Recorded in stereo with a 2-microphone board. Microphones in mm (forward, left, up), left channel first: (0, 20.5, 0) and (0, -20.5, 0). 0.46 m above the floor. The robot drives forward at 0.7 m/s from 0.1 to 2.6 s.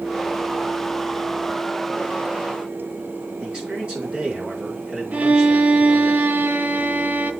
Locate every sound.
3.4 s a man speaking: 25° right (ahead or behind), 5 m
5.1 s a violin: 45° right (ahead or behind), 0.9 m